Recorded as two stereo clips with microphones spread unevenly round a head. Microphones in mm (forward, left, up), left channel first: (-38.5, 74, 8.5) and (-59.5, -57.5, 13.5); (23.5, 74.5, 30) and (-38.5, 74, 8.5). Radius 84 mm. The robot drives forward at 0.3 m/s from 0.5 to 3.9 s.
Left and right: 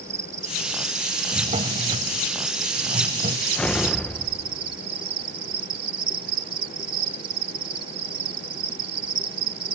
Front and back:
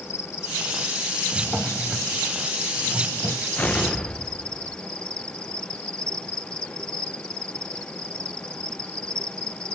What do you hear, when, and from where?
0.0 s an insect: 30° right; by 9.8 s 55° right
1.3 s a drawer: 70° right; by 3.5 s 95° right
3.6 s an explosion: straight ahead